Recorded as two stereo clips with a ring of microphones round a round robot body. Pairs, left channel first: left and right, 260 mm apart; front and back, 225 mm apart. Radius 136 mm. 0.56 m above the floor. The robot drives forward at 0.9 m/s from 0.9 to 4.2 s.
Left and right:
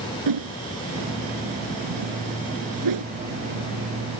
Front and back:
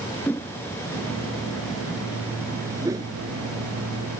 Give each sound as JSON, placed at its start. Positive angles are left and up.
{"t": 0.3, "sound": "a whoosh", "azimuth_deg": -85}